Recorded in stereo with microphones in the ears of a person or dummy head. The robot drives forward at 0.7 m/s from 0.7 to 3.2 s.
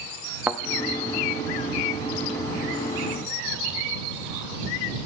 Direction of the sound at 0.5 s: 10° right (ahead or behind).